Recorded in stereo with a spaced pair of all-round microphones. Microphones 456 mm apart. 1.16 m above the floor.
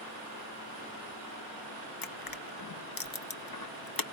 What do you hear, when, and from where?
2.0 s crushing: 50° left (ahead or behind), 0.7 m